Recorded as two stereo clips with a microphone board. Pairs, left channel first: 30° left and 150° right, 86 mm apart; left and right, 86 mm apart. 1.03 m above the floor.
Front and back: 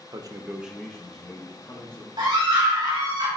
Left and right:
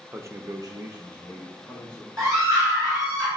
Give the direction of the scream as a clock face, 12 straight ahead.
5 o'clock.